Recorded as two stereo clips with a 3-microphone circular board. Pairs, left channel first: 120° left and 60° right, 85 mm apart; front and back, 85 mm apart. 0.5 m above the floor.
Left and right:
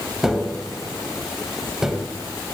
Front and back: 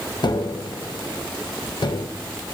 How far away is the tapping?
About 0.6 m.